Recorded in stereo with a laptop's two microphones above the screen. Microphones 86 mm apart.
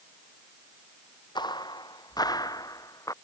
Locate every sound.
1.4 s footsteps: 55° left (ahead or behind); by 3.1 s 40° left (ahead or behind)